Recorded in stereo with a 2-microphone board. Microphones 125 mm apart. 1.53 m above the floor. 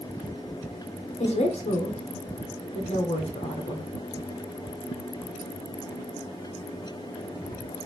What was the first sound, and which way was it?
A woman speaking, 60° left (ahead or behind).